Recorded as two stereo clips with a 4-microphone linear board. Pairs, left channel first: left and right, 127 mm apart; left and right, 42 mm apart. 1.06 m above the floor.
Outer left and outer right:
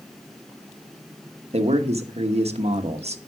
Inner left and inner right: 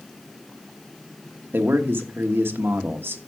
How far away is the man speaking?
About 1.1 m.